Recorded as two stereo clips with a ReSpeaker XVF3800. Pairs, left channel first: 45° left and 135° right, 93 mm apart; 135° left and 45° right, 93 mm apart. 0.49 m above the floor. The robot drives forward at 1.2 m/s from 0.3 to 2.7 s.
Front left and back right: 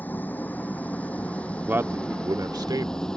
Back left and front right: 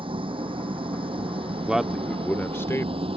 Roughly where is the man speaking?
Right.